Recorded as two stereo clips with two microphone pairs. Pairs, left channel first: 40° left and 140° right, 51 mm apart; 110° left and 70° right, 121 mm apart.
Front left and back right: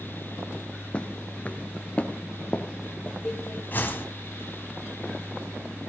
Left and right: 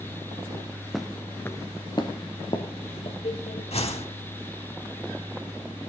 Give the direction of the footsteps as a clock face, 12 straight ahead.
11 o'clock.